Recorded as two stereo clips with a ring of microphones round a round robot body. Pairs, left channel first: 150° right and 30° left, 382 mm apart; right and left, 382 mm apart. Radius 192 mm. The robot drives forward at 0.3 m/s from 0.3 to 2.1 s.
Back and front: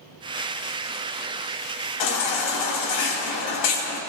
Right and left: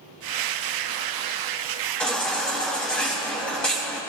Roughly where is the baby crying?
Behind.